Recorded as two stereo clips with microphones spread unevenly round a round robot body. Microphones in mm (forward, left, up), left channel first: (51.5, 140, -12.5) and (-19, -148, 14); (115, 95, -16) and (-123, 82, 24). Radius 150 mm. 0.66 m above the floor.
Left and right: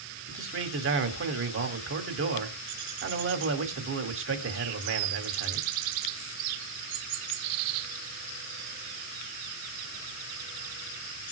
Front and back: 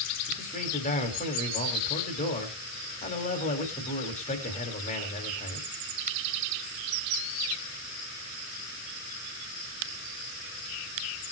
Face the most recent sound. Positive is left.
turn(degrees=-55)